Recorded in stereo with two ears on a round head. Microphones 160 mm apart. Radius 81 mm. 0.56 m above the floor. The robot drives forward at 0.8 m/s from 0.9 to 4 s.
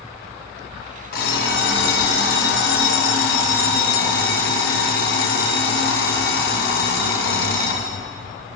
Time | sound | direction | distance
1.1 | an alarm clock | 65° left (ahead or behind) | 3 m